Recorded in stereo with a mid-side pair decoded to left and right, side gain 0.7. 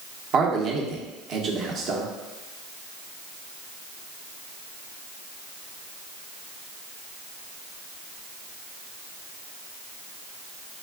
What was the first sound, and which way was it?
A man speaking, 45° right.